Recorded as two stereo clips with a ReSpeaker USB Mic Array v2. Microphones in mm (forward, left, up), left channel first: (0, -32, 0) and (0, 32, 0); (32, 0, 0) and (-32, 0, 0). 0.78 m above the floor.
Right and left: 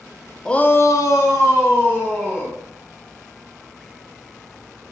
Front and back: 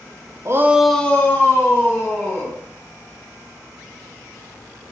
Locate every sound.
0.5 s a shout: 165° right, 0.5 m; by 2.6 s 45° right, 2 m